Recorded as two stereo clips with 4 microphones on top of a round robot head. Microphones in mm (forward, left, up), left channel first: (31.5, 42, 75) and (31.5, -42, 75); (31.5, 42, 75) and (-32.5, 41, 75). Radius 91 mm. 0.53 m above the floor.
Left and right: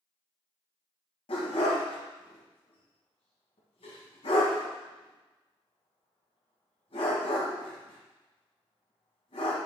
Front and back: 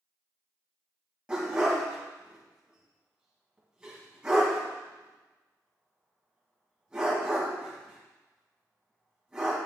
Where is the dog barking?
105° left, 1.9 m.